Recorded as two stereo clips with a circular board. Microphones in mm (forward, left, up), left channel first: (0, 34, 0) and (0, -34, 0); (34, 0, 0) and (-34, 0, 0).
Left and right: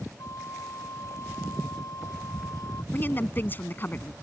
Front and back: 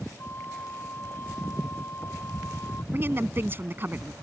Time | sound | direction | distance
0.2 | a flute | 60° left | ?
2.9 | a woman speaking | 140° left | ?